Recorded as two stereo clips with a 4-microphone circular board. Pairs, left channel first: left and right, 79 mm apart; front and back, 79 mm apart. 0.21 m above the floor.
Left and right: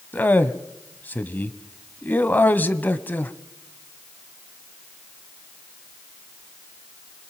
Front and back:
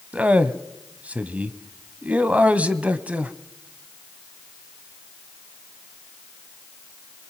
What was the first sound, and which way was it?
A man speaking, 130° left.